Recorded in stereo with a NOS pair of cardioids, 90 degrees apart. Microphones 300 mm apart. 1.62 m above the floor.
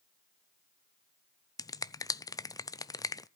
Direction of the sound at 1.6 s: 10° left.